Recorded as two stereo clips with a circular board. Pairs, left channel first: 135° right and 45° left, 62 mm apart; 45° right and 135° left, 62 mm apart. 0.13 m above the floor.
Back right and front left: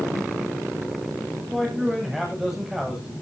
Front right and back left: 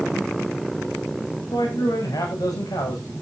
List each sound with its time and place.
1.5 s a man speaking: 35° right, 8 m